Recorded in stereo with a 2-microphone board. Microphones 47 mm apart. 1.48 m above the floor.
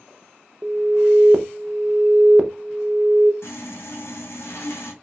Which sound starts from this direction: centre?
An alarm, at 0.6 s.